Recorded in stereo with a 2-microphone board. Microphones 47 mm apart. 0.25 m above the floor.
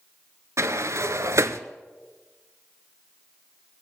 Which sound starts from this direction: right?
A sliding door, at 0.6 s.